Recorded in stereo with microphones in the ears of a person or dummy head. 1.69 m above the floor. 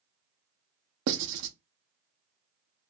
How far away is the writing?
About 0.7 m.